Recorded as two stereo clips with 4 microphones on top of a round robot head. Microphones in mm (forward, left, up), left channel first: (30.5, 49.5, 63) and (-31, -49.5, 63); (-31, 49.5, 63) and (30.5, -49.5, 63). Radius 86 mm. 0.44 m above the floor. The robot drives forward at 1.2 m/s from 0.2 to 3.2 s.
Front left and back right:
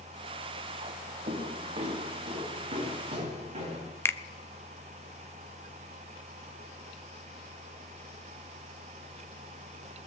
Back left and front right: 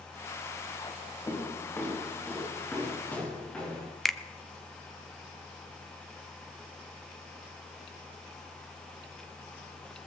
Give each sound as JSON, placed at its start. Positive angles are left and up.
{"t": 1.3, "sound": "footsteps", "azimuth_deg": -165, "distance_m": 4.0}
{"t": 4.0, "sound": "a finger snap", "azimuth_deg": 40, "distance_m": 0.7}